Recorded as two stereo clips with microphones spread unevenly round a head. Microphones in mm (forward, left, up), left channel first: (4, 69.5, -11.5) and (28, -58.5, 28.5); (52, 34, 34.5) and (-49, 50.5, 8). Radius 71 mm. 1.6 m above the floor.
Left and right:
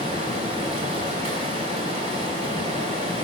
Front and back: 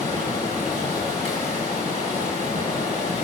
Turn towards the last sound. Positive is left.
turn(degrees=-50)